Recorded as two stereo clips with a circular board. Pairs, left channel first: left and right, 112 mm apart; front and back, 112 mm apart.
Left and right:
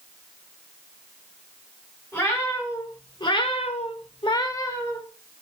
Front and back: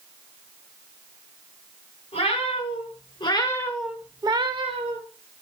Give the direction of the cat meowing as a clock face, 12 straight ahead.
11 o'clock.